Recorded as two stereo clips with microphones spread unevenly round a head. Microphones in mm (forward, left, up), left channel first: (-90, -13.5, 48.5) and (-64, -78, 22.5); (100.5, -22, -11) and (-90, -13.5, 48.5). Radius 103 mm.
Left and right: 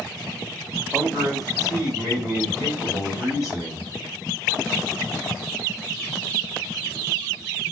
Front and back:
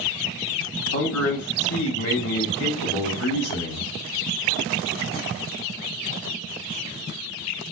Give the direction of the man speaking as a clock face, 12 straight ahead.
12 o'clock.